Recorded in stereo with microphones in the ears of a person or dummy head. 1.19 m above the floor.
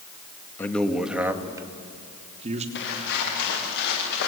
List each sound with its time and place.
0.6 s a man speaking: 10° left (ahead or behind), 1.7 m; by 2.6 s 40° right (ahead or behind), 2.5 m
2.8 s footsteps: 65° left (ahead or behind), 8.5 m; by 4.3 s 60° left (ahead or behind), 10.5 m